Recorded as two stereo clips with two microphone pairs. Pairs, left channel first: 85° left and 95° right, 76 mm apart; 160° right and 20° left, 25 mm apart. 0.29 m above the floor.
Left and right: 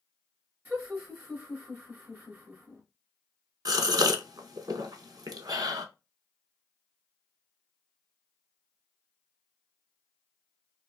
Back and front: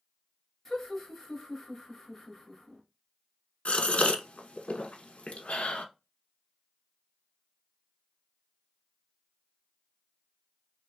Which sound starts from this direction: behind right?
A gasp, at 3.6 s.